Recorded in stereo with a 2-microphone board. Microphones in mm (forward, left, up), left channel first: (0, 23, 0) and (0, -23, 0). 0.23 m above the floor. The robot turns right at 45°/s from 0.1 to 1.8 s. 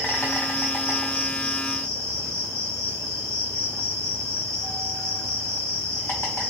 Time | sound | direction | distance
0.0 | an insect | 25° left | 2 m